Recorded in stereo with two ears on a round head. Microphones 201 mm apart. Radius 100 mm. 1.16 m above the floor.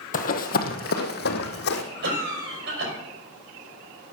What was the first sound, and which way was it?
Running footsteps, 40° left (ahead or behind).